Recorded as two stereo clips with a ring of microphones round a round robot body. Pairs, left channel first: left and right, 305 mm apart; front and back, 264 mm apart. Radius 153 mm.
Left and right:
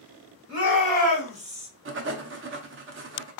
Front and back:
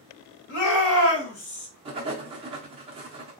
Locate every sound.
0.5 s a shout: 35° right, 2.5 m; by 1.7 s 25° right, 1.9 m
1.9 s writing: 120° right, 0.5 m